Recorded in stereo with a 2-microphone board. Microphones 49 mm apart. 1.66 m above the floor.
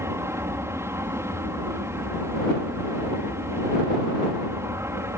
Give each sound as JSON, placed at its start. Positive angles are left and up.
{"t": 0.0, "sound": "an aircraft", "side_deg": -60}